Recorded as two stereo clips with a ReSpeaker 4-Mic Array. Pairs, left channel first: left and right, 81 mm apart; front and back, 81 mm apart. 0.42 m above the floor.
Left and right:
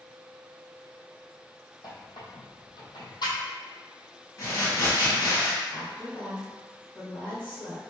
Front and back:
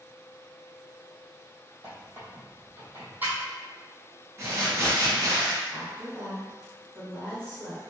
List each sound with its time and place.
1.8 s a squeak: 115° left, 1.1 m
4.4 s crumpling: 130° left, 1.6 m
5.7 s a woman speaking: 145° left, 1.6 m